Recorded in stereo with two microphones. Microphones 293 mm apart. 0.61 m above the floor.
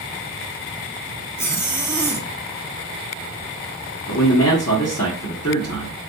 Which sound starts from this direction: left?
A man speaking, at 4.1 s.